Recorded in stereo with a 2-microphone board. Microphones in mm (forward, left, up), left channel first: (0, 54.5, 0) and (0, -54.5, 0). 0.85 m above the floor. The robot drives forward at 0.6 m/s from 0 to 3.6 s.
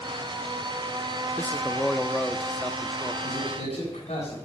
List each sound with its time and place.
1.4 s a man speaking: 15° left (ahead or behind), 0.7 m; by 3.1 s 5° left (ahead or behind), 1.7 m
3.2 s a man speaking: 75° left (ahead or behind), 7 m